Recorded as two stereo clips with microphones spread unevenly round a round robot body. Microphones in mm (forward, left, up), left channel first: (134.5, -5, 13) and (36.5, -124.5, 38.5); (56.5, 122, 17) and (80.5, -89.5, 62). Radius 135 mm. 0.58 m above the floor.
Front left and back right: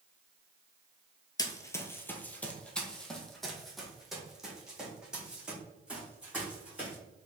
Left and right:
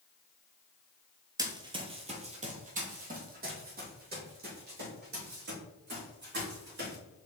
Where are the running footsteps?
20° right, 0.9 m; by 7.0 s 50° right, 3.5 m.